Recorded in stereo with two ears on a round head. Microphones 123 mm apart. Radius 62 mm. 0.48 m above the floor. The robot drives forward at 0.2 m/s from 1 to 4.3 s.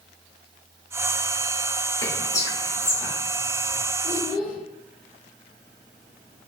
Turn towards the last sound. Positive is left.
turn(degrees=65)  # may be behind; listen again after turning